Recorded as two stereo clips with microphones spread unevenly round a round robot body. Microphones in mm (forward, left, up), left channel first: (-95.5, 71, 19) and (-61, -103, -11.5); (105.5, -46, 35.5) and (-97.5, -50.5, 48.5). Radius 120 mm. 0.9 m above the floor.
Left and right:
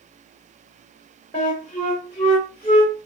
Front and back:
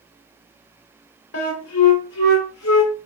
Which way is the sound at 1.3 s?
30° left.